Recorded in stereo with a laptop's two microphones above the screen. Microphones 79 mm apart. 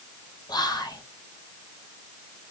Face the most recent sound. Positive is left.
turn(degrees=60)  # may be behind; listen again after turning